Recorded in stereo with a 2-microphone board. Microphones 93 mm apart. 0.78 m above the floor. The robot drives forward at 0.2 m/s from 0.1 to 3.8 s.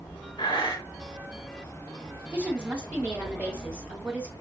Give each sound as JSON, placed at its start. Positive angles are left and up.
{"t": 0.4, "sound": "breathing", "side_deg": 55, "distance_m": 3.5}
{"t": 2.3, "sound": "a woman speaking", "side_deg": -15, "distance_m": 2.0}